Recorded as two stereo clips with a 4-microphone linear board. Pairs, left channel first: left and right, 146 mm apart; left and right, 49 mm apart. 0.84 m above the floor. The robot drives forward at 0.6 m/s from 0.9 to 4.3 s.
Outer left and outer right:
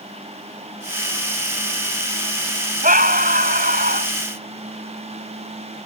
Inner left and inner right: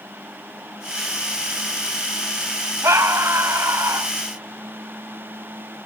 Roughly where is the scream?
Right.